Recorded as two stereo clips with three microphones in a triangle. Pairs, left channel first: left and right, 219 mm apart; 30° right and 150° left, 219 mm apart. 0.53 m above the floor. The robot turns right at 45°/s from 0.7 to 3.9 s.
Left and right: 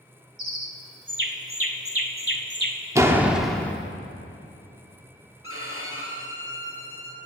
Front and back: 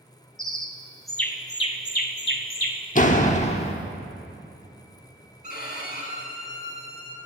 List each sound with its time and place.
0.4 s a bird: 135° right, 0.9 m; by 2.9 s 40° right, 0.9 m
3.0 s a door slam: 25° right, 0.8 m; by 3.7 s 10° left, 0.8 m
5.4 s a violin: 80° right, 2 m